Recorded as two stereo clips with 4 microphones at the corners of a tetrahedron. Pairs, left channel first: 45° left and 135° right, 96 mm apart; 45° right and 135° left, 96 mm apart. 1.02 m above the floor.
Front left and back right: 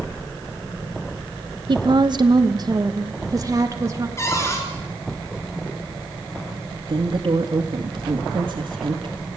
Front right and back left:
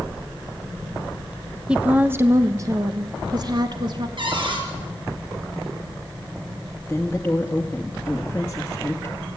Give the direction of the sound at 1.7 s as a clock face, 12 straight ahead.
5 o'clock.